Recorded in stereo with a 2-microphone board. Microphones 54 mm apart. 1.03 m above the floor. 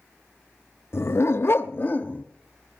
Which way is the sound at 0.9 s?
45° left (ahead or behind).